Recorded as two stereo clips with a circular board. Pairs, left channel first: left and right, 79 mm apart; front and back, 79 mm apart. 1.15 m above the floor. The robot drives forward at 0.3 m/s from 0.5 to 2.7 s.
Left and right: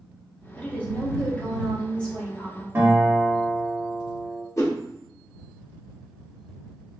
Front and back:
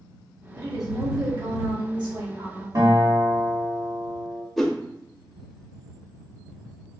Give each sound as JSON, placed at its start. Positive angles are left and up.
{"t": 0.6, "sound": "a woman speaking", "azimuth_deg": 160, "distance_m": 1.0}
{"t": 2.8, "sound": "a guitar", "azimuth_deg": -150, "distance_m": 1.5}
{"t": 4.6, "sound": "a whoosh", "azimuth_deg": 90, "distance_m": 0.7}